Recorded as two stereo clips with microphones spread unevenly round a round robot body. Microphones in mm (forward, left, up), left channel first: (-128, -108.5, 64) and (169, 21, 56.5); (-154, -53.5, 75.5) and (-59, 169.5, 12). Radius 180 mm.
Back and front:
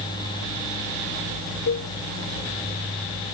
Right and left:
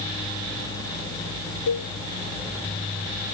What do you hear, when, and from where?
1.7 s a cowbell: 110° right